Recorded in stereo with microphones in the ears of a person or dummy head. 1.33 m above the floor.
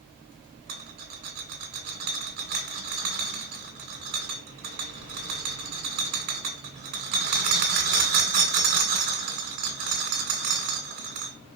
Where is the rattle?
55° right (ahead or behind), 2.5 m.